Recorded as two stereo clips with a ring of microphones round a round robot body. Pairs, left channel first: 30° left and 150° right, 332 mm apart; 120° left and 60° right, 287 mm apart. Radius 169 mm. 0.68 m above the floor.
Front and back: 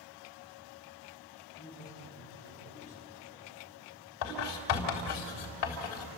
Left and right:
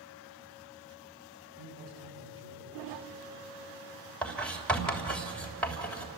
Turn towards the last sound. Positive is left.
turn(degrees=35)